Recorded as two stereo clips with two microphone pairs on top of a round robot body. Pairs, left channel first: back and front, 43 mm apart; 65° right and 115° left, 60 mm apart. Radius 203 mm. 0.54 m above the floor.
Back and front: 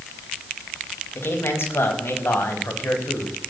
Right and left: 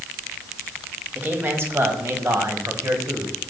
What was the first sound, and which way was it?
A man speaking, 170° left.